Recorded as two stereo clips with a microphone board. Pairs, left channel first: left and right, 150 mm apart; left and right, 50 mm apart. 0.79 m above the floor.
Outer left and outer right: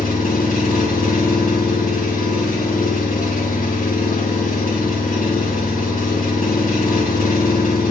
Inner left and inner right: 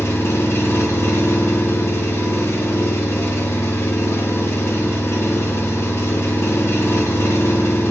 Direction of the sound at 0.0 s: 65° left (ahead or behind).